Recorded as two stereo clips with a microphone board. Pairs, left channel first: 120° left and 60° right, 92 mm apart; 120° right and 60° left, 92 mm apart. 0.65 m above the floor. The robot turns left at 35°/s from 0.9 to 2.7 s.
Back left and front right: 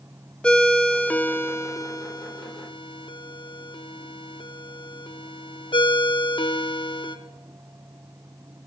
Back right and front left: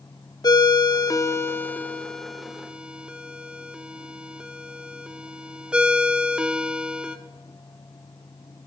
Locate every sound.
0.4 s a ringtone: 160° right, 0.8 m; by 7.2 s 140° left, 0.8 m